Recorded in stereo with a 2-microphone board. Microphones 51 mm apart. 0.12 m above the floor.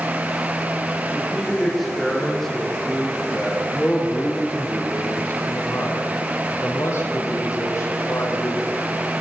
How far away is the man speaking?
About 7 m.